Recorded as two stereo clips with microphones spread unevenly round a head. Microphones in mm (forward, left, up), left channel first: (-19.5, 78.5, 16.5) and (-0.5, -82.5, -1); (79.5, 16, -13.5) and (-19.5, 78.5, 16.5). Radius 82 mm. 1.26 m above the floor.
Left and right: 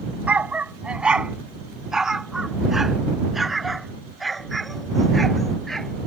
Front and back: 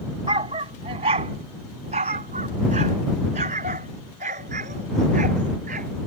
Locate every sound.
0.3 s a dog barking: 170° right; by 6.1 s 175° right